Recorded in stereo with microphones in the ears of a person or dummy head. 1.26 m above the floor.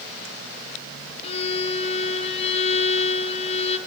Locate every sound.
1.2 s a violin: 35° left (ahead or behind), 0.9 m